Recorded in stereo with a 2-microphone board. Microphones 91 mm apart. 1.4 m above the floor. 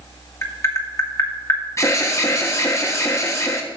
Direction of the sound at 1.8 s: 30° left (ahead or behind).